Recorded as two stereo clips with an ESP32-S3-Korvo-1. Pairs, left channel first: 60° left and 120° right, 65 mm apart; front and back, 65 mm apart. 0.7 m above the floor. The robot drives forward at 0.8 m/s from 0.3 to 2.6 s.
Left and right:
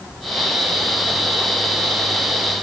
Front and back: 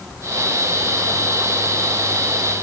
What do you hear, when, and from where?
Only background noise.